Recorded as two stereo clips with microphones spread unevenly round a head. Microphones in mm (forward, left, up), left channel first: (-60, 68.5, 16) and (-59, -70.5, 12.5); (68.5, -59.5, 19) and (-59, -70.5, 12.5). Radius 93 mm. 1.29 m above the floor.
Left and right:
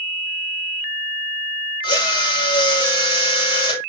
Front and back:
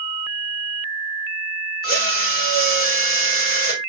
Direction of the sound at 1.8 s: 25° left.